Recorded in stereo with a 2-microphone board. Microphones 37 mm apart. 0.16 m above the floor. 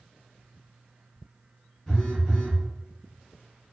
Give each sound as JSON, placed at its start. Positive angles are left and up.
{"t": 1.9, "sound": "a phone buzzing", "side_deg": 15, "distance_m": 1.5}